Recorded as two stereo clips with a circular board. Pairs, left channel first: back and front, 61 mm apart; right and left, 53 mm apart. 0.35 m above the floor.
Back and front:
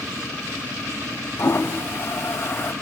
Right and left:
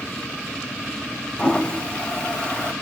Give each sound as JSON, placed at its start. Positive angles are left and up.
{"t": 1.4, "sound": "a toilet flushing", "azimuth_deg": -155, "distance_m": 1.7}